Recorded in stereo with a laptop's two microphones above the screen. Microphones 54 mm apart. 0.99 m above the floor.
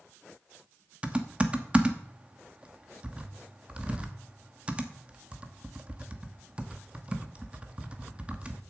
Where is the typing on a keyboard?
25° right (ahead or behind), 0.8 m.